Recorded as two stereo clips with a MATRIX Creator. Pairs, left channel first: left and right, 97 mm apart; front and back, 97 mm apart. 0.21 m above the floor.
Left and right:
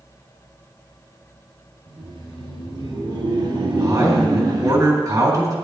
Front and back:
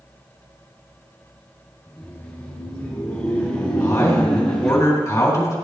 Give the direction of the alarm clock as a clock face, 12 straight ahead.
I don't hear an alarm clock.